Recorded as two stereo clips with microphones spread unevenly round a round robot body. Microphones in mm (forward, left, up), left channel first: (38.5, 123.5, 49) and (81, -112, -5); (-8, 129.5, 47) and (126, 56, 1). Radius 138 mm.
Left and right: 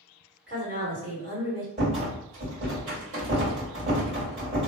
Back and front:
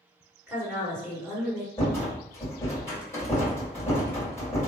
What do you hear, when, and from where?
0.5 s a woman speaking: 90° right, 1.8 m
1.8 s a rattle: 120° right, 1.9 m